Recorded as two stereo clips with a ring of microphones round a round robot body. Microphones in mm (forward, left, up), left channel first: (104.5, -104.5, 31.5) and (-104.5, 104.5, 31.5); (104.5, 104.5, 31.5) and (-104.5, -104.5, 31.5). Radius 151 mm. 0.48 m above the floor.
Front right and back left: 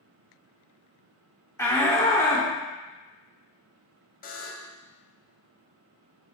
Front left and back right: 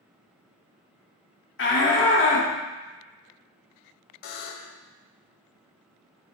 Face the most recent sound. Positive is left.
turn(degrees=20)